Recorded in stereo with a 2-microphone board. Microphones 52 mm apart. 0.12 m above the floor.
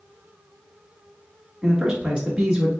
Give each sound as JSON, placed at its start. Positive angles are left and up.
{"t": 1.6, "sound": "a man speaking", "side_deg": -15, "distance_m": 1.2}